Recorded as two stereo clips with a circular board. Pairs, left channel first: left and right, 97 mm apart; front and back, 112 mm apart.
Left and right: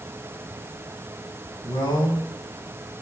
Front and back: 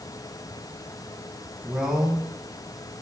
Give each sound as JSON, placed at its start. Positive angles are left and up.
{"t": 1.6, "sound": "a man speaking", "azimuth_deg": 95, "distance_m": 1.8}